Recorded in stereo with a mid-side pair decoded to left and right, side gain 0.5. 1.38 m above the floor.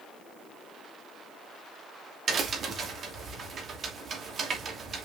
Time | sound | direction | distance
2.3 | a crack | 50° right | 2.5 m